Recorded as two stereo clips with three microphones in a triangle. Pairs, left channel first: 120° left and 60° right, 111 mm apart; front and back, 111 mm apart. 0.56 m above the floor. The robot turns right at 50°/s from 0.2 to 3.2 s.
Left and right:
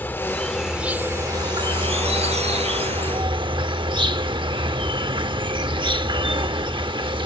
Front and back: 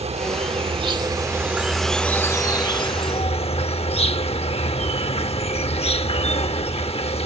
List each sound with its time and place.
0.0 s an insect: 170° right; by 7.3 s 20° right